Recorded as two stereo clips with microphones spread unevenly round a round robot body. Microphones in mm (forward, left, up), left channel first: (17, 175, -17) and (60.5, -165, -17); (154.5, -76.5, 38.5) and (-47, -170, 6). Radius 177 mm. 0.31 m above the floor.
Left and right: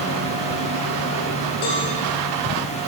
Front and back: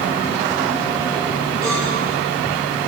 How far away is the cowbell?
About 5.5 m.